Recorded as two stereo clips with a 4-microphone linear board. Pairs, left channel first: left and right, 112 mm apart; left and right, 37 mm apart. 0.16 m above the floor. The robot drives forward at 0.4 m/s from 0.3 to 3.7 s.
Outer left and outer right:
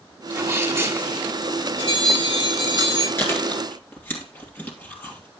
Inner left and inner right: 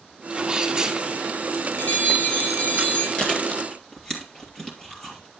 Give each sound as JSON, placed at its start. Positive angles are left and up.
{"t": 0.3, "sound": "a sneeze", "side_deg": -25, "distance_m": 1.8}
{"t": 1.8, "sound": "a bell", "side_deg": 55, "distance_m": 6.5}
{"t": 3.2, "sound": "chewing", "side_deg": 25, "distance_m": 2.5}